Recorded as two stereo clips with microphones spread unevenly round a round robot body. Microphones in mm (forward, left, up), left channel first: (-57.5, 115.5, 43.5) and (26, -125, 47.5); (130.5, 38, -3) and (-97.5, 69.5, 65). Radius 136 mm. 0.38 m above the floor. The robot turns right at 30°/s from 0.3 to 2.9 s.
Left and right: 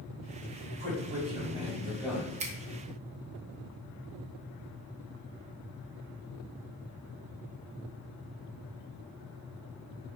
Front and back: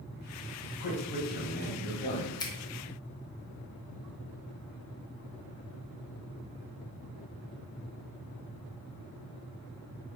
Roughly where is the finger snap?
Ahead right.